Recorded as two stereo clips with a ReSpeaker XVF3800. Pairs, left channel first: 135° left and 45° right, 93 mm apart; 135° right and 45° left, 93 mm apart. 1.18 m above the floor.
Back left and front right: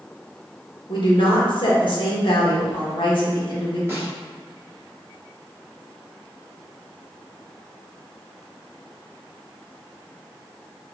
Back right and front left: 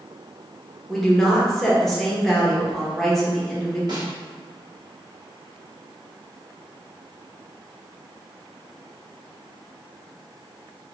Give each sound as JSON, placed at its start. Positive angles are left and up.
{"t": 0.9, "sound": "a woman speaking", "azimuth_deg": 140, "distance_m": 1.0}
{"t": 3.9, "sound": "a snare drum", "azimuth_deg": 10, "distance_m": 1.0}